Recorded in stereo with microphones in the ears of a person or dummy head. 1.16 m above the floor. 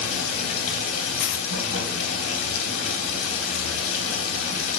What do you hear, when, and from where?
0.0 s running water: 75° left (ahead or behind), 3 m
1.2 s a dropped coin: 50° left (ahead or behind), 0.8 m